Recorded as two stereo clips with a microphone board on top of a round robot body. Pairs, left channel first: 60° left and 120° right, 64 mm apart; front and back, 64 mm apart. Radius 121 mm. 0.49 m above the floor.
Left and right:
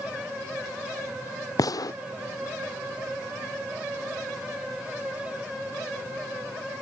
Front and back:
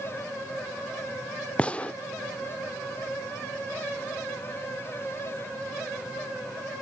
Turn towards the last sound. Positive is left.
turn(degrees=70)